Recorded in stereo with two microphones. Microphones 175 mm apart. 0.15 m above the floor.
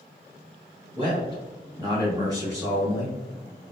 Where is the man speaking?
30° right (ahead or behind), 1.8 m; by 3.2 s 15° right (ahead or behind), 2 m.